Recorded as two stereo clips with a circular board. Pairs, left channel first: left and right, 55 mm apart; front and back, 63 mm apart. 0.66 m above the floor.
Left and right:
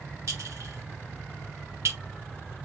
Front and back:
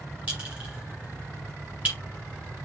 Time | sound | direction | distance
0.3 | a clink | 115° right | 4.5 m